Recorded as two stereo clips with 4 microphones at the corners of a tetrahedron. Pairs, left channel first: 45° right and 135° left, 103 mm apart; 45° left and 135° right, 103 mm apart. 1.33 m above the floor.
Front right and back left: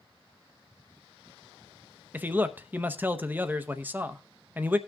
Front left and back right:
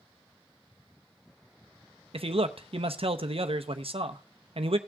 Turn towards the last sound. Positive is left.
turn(degrees=-155)